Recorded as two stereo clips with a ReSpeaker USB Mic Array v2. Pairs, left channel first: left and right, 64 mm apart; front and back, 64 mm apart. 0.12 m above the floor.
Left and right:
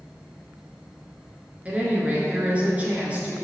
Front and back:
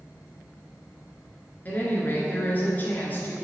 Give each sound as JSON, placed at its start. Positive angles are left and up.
{"t": 1.6, "sound": "a woman speaking", "azimuth_deg": -35, "distance_m": 1.7}